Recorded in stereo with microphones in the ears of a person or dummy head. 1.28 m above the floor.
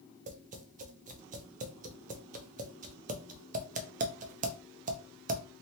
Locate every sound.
0.3 s tapping: 40° right (ahead or behind), 0.5 m